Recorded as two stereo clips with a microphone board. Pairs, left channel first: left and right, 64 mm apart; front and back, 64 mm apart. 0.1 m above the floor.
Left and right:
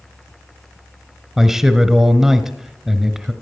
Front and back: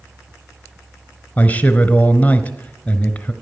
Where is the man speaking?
15° right, 1.1 m.